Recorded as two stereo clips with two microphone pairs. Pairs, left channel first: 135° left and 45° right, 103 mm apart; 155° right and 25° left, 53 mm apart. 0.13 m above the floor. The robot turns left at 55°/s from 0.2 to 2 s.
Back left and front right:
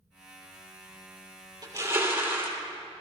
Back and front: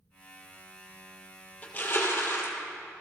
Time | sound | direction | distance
1.6 | crushing | 90° right | 2 m